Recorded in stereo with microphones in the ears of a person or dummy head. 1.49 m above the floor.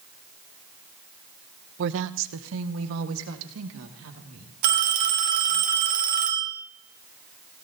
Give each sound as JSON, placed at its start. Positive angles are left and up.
{"t": 1.8, "sound": "a woman speaking", "side_deg": -60, "distance_m": 0.5}
{"t": 4.6, "sound": "a phone ringing", "side_deg": -50, "distance_m": 2.0}